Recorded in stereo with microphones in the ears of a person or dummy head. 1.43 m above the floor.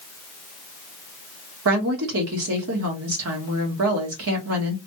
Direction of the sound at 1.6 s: 75° right (ahead or behind).